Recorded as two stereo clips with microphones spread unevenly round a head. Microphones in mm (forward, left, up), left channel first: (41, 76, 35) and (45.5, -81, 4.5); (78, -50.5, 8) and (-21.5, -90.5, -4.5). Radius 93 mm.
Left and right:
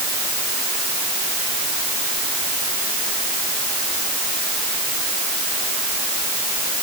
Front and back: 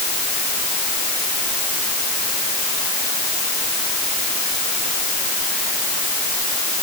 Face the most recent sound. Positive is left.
No sound to turn to.